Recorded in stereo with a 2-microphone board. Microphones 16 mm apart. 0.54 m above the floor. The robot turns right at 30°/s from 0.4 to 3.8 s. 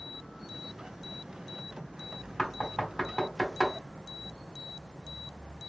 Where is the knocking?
40° left (ahead or behind), 1.5 m; by 3.8 s 10° left (ahead or behind), 1.5 m.